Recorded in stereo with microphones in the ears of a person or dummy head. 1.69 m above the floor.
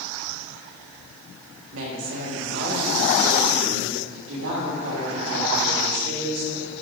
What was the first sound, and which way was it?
A woman speaking, 70° right (ahead or behind).